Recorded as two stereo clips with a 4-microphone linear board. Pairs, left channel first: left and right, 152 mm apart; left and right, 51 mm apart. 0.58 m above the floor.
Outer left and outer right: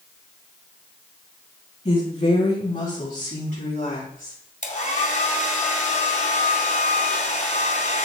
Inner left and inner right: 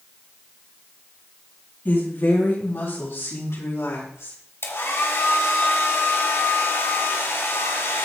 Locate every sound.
1.9 s a woman speaking: 50° left (ahead or behind), 4.5 m; by 4.4 s 75° left (ahead or behind), 5.5 m
4.6 s a hair dryer: 65° left (ahead or behind), 1.8 m